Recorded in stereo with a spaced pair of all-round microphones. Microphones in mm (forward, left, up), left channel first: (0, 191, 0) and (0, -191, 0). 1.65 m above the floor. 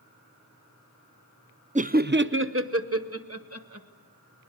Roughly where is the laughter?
Centre.